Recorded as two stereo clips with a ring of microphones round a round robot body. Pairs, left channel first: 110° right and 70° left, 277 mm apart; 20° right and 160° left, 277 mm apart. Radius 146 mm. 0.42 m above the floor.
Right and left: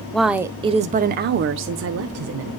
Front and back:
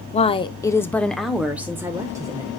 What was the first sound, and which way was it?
A woman speaking, 30° right.